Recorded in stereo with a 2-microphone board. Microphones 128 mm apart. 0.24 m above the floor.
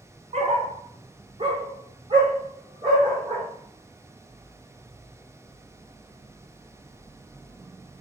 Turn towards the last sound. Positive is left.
turn(degrees=-30)  # may be behind; listen again after turning